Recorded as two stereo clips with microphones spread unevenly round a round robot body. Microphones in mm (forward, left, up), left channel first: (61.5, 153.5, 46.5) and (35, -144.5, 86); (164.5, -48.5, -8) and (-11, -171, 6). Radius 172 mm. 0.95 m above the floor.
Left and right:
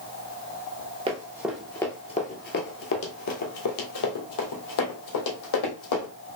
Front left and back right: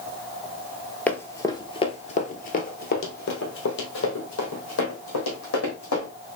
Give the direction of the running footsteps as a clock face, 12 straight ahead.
2 o'clock.